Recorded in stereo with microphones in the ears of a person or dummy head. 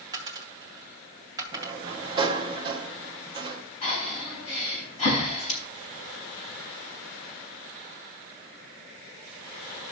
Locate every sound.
0.1 s a dropped coin: 25° right (ahead or behind), 1.7 m
1.5 s a sliding door: 25° right (ahead or behind), 0.8 m
3.8 s breathing: 35° left (ahead or behind), 5 m